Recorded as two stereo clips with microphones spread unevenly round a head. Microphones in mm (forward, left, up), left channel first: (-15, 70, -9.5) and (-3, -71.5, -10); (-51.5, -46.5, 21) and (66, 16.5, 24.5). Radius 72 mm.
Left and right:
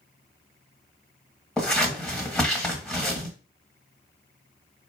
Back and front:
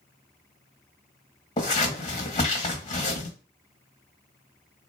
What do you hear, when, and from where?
1.6 s scissors: 175° left, 1.5 m